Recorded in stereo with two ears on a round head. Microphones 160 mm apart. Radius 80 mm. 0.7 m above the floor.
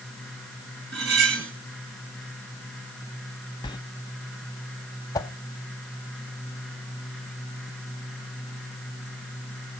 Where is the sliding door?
25° left (ahead or behind), 0.6 m.